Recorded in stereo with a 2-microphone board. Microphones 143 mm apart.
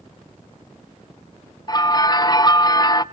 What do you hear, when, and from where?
1.7 s a bell: 30° left (ahead or behind), 0.7 m